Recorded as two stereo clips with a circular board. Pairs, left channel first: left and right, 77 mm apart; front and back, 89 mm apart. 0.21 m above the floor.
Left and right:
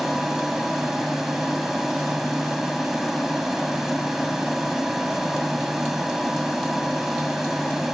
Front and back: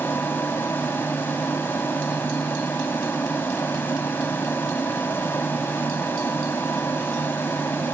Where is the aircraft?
10° right.